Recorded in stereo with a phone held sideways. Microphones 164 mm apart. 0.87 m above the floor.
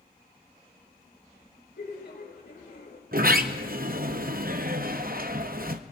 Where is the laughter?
80° left, 3 m.